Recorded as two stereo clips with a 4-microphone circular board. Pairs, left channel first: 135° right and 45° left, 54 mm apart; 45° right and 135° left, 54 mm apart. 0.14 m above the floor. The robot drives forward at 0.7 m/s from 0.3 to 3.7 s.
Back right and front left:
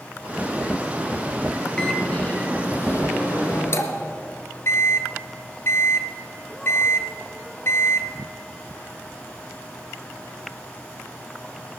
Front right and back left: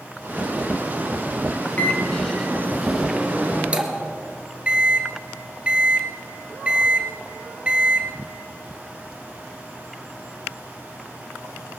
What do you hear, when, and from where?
1.8 s a microwave: 75° right, 0.9 m; by 8.1 s 160° right, 1.5 m